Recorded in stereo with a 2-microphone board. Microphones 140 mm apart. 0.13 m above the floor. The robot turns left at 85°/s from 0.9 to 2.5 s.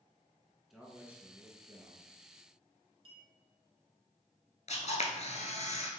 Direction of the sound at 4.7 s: 55° left (ahead or behind).